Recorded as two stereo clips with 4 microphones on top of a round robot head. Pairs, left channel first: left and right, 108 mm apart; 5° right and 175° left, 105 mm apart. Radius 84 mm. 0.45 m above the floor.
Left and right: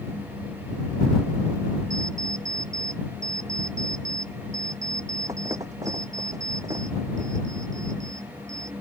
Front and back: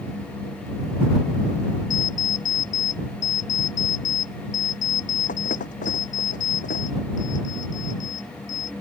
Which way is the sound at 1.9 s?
20° right.